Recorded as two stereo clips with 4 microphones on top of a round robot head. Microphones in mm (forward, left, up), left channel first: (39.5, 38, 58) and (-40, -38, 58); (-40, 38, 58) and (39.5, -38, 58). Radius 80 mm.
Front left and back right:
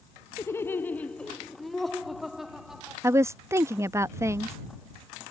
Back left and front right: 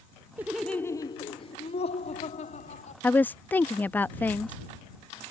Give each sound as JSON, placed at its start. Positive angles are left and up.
{"t": 0.4, "sound": "laughter", "azimuth_deg": 5}
{"t": 3.0, "sound": "a woman speaking", "azimuth_deg": -165}